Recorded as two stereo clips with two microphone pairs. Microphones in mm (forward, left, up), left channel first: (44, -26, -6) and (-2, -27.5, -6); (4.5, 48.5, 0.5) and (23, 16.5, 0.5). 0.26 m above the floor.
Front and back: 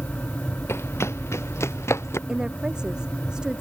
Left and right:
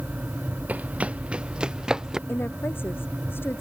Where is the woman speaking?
110° left.